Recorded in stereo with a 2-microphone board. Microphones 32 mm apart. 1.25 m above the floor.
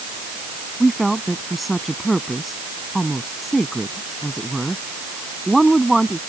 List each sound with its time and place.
0.8 s a woman speaking: 5° left (ahead or behind)